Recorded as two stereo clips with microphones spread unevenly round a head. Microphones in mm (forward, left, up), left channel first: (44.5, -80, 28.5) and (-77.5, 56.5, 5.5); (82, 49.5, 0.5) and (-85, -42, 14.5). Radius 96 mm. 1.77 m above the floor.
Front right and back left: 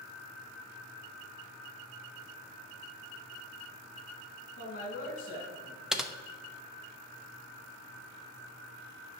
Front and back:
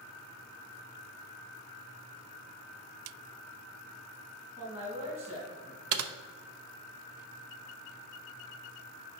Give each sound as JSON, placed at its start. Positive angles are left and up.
{"t": 4.6, "sound": "a man speaking", "azimuth_deg": -90, "distance_m": 3.5}
{"t": 5.9, "sound": "typing on a keyboard", "azimuth_deg": -140, "distance_m": 0.7}